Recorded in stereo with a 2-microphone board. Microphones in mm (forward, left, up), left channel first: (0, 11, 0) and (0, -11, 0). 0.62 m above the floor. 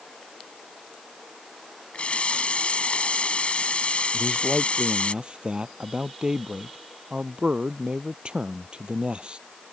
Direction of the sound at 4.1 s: 40° right (ahead or behind).